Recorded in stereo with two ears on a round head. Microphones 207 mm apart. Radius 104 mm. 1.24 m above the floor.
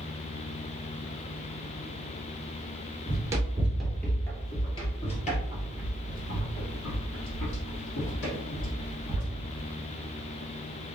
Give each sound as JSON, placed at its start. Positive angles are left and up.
{"t": 3.1, "sound": "running footsteps", "side_deg": -20, "distance_m": 1.3}